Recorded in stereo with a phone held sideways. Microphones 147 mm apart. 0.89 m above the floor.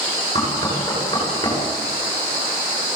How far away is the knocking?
About 8.5 m.